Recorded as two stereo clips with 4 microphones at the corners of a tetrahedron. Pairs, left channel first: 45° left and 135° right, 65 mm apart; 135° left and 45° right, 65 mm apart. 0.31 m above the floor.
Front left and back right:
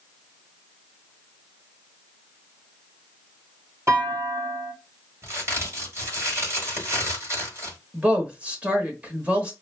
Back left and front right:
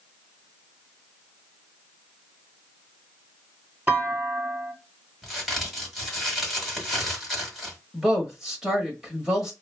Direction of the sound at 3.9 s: 100° right.